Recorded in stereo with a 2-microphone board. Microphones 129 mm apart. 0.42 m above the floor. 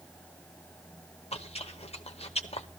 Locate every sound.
1.3 s chewing: 50° left (ahead or behind), 1.0 m